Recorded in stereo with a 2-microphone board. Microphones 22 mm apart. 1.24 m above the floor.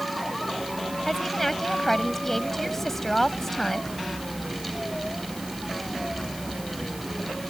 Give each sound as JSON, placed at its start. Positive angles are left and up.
{"t": 1.1, "sound": "a woman speaking", "side_deg": 15}